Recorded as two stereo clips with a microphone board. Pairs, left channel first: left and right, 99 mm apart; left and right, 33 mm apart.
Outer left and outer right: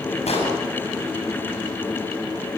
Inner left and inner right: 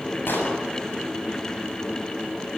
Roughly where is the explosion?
Left.